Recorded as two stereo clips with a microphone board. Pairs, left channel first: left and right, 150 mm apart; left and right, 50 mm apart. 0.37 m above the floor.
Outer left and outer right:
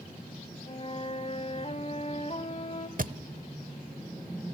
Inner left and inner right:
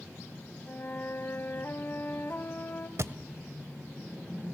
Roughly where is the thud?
Right.